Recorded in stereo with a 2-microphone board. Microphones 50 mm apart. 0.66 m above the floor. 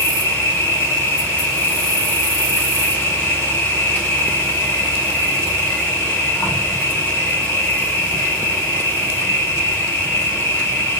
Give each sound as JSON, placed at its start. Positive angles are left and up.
{"t": 0.0, "sound": "an insect", "side_deg": 35, "distance_m": 5.5}